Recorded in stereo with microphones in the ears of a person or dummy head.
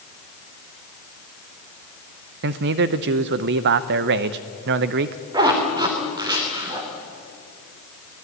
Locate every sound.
2.4 s a man speaking: 60° right (ahead or behind), 0.7 m
5.3 s a zipper: 25° right (ahead or behind), 3 m